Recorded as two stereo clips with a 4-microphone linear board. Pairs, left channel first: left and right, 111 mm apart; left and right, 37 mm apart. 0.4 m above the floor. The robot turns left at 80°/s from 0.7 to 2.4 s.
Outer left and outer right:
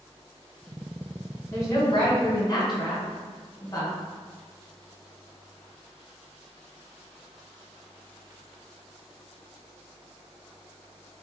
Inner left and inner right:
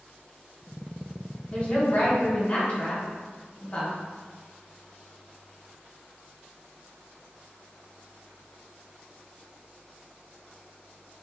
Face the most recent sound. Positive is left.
turn(degrees=70)